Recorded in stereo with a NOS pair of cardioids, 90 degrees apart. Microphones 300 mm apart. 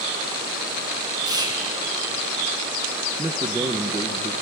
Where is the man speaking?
15° right, 1.7 m.